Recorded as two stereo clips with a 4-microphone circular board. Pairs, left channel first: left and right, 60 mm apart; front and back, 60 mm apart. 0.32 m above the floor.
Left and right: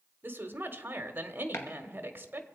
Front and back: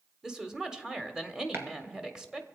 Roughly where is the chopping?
Behind left.